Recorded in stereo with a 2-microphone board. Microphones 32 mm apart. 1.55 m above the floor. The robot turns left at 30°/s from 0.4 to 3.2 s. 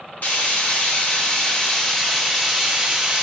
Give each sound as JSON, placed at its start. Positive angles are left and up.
{"t": 0.2, "sound": "frying", "azimuth_deg": 65, "distance_m": 0.7}